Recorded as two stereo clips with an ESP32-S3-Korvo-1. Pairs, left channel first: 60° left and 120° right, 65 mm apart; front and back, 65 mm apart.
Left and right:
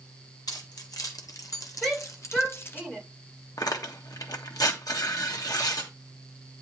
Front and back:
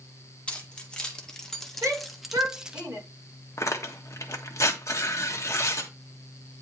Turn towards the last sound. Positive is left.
turn(degrees=40)